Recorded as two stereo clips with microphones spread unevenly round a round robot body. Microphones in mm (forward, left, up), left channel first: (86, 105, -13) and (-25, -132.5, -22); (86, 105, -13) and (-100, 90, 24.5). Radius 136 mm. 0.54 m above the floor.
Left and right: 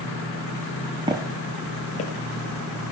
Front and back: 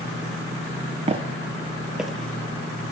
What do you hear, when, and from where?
1.1 s footsteps: straight behind, 0.6 m; by 2.9 s 85° left, 1.0 m